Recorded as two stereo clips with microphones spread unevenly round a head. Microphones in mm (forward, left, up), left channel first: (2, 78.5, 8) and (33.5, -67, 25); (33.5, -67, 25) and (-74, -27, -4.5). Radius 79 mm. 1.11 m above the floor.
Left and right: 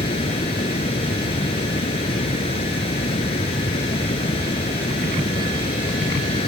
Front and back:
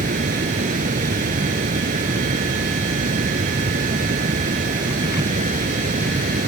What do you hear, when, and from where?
0.0 s running water: 160° left